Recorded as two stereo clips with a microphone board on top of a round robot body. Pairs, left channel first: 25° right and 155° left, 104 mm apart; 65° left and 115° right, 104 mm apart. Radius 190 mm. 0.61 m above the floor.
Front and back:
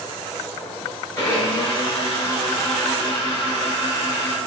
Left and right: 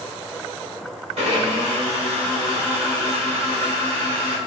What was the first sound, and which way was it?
A blender, 85° right.